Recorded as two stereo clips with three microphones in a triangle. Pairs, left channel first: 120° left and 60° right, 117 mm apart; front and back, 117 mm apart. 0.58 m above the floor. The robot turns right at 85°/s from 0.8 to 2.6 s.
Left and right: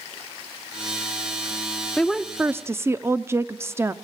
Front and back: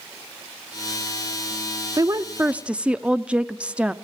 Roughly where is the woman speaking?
Behind.